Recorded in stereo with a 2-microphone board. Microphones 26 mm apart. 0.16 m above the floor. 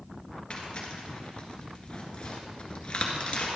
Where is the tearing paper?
30° left (ahead or behind), 1.6 m.